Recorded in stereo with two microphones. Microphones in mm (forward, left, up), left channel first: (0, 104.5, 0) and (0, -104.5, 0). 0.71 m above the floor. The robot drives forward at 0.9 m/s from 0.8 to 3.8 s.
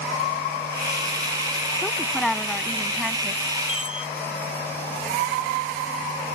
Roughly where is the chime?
Centre.